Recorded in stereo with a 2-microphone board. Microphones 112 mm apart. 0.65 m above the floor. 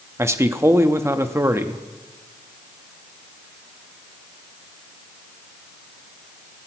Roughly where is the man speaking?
Right.